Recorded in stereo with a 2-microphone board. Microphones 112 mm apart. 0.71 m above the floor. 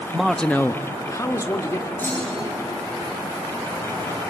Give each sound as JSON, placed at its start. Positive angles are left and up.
{"t": 0.1, "sound": "a man speaking", "side_deg": -10, "distance_m": 0.7}
{"t": 2.0, "sound": "a clunk", "side_deg": 20, "distance_m": 7.5}